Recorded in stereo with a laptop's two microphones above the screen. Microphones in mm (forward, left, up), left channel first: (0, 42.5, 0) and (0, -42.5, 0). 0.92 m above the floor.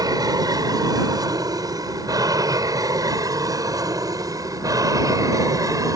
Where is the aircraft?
45° right (ahead or behind); by 6.0 s 40° right (ahead or behind).